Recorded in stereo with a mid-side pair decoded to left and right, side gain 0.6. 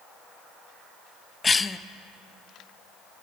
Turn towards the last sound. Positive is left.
turn(degrees=20)